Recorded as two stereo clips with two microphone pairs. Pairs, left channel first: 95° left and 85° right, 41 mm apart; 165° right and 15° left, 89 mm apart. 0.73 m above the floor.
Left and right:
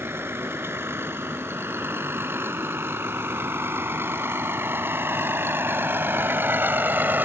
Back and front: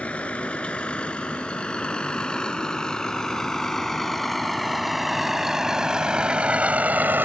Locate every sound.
0.0 s a vehicle: 90° right; by 7.3 s 55° right